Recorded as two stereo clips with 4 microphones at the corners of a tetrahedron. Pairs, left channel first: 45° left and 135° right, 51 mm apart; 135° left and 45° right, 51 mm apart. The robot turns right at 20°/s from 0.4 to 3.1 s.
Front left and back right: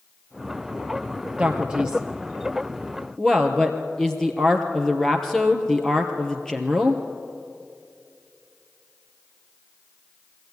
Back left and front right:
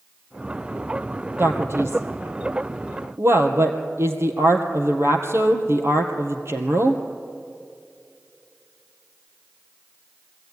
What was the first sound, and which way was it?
A man speaking, 70° right.